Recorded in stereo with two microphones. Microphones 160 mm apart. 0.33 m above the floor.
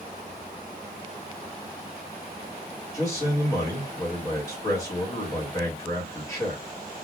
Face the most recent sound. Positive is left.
turn(degrees=20)  # may be behind; listen again after turning